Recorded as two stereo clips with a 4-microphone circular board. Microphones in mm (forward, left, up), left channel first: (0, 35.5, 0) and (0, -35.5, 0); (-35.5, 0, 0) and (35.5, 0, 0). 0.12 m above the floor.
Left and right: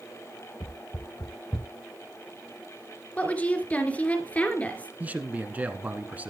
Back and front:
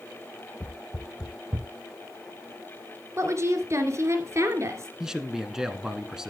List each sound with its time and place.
0.6 s footsteps: 110° left, 1.2 m; by 1.7 s 20° left, 0.8 m
3.2 s a woman speaking: 25° left, 2.5 m
5.0 s a man speaking: 70° right, 1.2 m